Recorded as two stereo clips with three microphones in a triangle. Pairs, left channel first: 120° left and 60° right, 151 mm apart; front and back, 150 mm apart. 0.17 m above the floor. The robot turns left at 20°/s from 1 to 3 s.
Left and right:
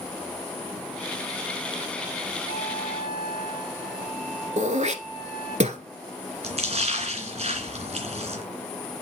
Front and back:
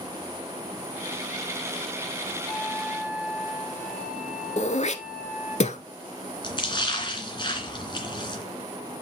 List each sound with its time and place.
2.5 s a flute: 90° right, 4 m; by 5.6 s 100° right, 4 m
4.6 s throat clearing: 30° right, 1.0 m
6.4 s a splash: 45° right, 2.5 m